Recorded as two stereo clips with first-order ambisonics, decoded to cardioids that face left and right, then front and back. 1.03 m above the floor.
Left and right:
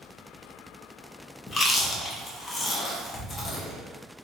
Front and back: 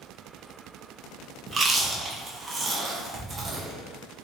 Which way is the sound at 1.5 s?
135° left.